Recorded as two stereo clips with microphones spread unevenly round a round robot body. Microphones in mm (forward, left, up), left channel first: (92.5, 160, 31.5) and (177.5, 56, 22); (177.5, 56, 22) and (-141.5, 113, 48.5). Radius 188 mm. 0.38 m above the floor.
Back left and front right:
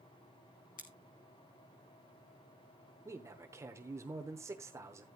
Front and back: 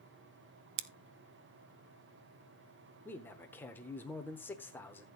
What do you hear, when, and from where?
0.8 s scissors: 175° right, 0.7 m
3.0 s a man speaking: 80° right, 0.9 m